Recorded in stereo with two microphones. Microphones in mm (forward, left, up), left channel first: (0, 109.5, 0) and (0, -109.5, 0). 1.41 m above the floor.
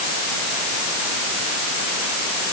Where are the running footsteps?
No running footsteps in this recording.